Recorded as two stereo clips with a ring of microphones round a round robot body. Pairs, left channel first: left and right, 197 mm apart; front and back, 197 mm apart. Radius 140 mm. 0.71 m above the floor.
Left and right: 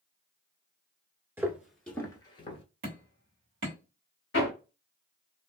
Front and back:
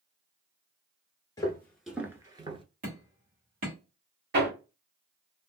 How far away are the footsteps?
About 0.7 m.